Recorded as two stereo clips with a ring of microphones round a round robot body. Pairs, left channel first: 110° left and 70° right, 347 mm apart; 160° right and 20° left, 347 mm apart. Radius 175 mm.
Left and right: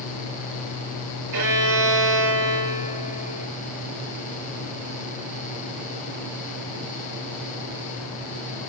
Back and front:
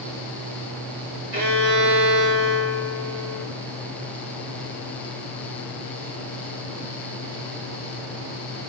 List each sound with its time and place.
1.3 s a violin: 30° right, 2.5 m